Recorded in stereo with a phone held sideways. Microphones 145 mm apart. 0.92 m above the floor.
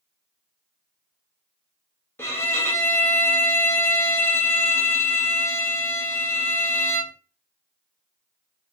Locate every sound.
2.2 s a violin: 15° left (ahead or behind), 1.0 m